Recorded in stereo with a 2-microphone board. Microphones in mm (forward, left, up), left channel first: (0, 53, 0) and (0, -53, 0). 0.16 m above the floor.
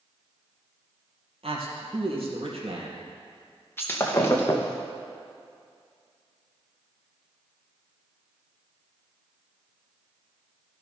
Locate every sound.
1.4 s a man speaking: 65° right (ahead or behind), 3.5 m
3.8 s breaking glass: 20° left (ahead or behind), 1.8 m